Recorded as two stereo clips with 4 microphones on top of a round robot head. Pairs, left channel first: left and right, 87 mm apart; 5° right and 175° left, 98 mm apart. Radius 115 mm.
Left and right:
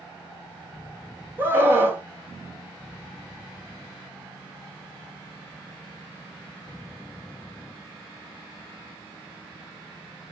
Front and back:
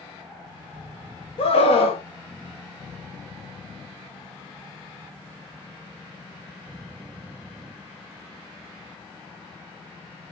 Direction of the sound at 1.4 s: 25° right.